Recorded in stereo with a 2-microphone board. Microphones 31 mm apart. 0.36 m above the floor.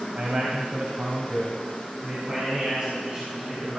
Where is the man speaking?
55° right (ahead or behind), 2 m; by 3.8 s 30° right (ahead or behind), 4.5 m.